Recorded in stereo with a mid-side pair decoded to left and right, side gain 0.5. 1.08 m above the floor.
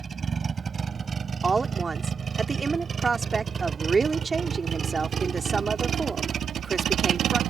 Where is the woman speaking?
30° right.